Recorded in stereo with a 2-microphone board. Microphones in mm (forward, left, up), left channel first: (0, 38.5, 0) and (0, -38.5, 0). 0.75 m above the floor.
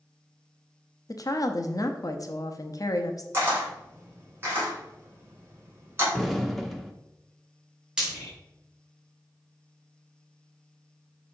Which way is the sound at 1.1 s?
55° left (ahead or behind).